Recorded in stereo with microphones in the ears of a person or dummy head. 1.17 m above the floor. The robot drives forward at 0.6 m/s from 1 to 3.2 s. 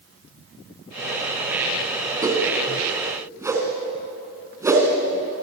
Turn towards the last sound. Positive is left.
turn(degrees=-15)  # may be behind; listen again after turning